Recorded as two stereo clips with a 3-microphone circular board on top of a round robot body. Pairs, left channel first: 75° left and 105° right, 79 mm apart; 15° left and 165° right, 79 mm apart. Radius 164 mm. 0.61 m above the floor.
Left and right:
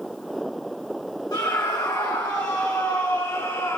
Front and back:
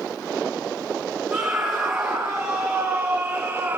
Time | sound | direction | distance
1.3 | a scream | 110° left | 7.5 m